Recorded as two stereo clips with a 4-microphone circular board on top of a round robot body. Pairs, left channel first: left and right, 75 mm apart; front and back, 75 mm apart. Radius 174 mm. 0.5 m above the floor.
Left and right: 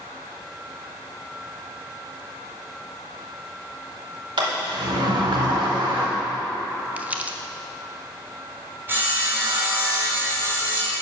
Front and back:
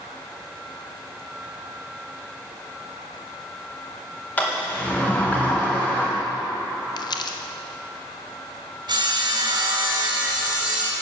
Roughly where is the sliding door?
Right.